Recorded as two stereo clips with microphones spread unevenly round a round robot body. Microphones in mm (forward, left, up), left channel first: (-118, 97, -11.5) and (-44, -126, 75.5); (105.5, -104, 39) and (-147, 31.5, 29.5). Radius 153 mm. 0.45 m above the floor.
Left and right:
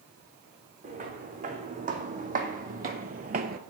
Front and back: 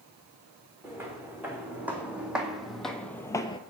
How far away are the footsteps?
About 3 m.